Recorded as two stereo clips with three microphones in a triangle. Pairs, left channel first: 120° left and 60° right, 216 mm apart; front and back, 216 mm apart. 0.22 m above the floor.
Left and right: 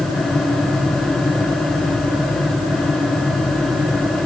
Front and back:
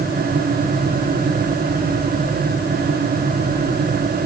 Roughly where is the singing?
No singing in this recording.